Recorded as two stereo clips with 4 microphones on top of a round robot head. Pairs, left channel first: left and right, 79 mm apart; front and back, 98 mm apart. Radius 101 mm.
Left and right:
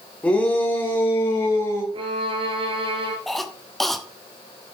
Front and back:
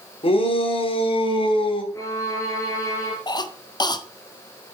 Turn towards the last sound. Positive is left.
turn(degrees=0)